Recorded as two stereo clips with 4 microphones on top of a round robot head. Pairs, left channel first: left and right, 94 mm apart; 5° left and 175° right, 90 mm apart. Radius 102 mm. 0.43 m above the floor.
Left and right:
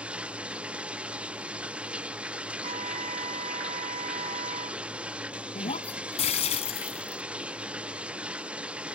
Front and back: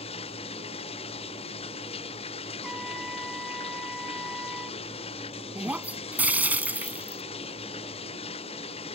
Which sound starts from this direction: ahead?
Running water, at 0.0 s.